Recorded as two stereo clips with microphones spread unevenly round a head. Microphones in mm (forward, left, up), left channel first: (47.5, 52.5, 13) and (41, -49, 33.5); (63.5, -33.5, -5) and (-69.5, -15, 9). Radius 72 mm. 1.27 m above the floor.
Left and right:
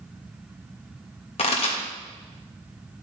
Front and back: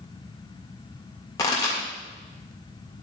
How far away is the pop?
About 1.7 m.